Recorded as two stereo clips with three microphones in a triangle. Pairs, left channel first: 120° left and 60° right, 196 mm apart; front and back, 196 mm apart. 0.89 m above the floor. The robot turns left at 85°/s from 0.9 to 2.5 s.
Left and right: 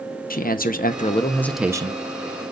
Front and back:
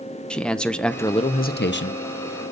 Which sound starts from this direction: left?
A man speaking, at 0.3 s.